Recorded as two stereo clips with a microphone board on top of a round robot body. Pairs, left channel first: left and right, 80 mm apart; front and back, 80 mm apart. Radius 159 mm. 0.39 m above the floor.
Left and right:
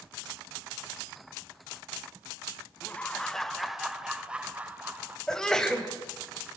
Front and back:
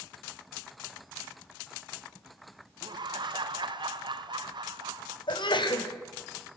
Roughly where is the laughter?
Behind.